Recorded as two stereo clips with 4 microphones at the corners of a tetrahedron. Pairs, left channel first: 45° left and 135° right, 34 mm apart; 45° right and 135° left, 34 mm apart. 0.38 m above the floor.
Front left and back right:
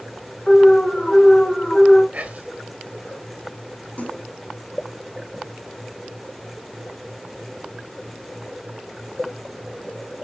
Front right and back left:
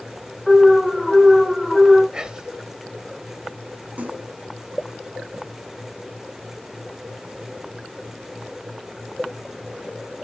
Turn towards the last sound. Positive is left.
turn(degrees=95)